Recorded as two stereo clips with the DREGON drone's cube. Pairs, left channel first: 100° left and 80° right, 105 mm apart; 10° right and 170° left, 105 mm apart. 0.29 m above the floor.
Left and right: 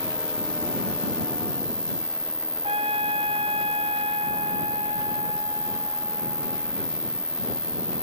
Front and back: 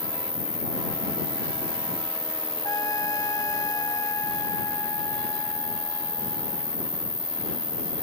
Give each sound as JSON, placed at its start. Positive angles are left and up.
{"t": 0.0, "sound": "an insect", "azimuth_deg": 180}
{"t": 2.6, "sound": "a trumpet", "azimuth_deg": -65}